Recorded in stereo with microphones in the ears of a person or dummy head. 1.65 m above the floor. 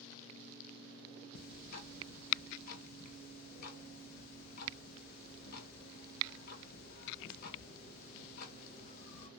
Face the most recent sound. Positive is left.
turn(degrees=60)  # may be behind; listen again after turning